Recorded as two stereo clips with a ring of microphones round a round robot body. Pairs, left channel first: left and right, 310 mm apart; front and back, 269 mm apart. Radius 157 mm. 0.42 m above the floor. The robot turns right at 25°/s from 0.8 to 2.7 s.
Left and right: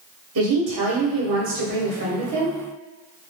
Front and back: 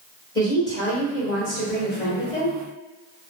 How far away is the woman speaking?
About 1.1 m.